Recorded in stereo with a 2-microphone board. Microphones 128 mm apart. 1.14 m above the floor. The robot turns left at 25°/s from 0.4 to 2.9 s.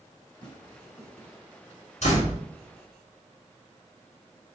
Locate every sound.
0.4 s tearing paper: 40° left (ahead or behind), 3.5 m; by 1.3 s 20° left (ahead or behind), 3.5 m
2.0 s a door slam: 65° left (ahead or behind), 3 m; by 2.4 s 75° left (ahead or behind), 3 m